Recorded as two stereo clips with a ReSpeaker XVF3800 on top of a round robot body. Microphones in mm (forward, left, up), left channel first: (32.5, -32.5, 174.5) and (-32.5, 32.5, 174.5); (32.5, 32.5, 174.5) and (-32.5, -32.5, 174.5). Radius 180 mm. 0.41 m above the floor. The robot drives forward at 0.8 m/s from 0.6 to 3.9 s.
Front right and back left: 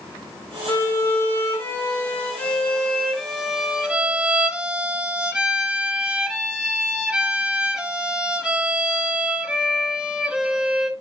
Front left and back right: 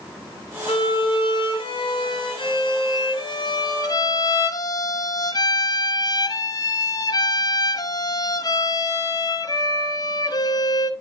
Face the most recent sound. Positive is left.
turn(degrees=55)